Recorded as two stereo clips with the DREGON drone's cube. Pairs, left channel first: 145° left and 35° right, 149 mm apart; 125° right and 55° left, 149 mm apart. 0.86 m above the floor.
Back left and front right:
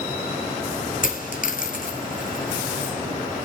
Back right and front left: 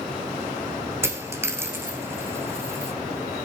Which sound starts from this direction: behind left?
A dropped coin, at 1.0 s.